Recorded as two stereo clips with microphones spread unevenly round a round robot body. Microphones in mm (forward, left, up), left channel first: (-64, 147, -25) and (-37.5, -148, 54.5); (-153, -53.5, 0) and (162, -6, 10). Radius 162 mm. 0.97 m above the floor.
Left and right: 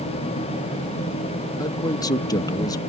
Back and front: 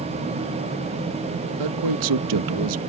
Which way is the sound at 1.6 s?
25° left.